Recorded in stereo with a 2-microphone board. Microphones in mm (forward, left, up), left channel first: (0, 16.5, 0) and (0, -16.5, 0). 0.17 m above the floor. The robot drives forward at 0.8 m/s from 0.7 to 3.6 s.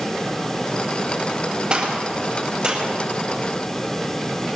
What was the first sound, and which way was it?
A gunshot, 30° right (ahead or behind).